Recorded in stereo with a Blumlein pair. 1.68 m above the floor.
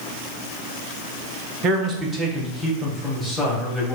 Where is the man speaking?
35° right, 0.9 m; by 4.0 s 5° left, 2.0 m.